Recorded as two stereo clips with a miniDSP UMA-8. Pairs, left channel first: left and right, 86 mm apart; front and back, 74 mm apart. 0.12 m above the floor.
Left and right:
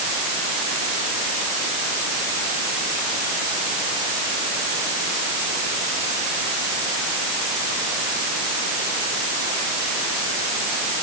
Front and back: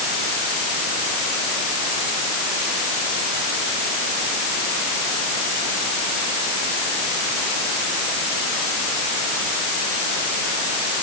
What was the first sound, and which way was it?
Only background noise.